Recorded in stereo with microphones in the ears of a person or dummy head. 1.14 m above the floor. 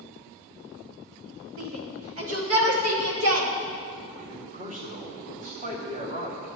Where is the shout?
55° right (ahead or behind), 1.7 m; by 3.5 s 65° right (ahead or behind), 2.5 m.